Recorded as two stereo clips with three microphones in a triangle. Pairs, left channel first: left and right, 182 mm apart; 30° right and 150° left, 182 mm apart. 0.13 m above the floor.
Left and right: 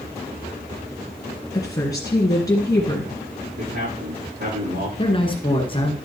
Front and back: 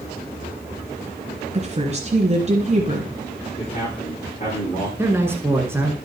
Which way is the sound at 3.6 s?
80° right.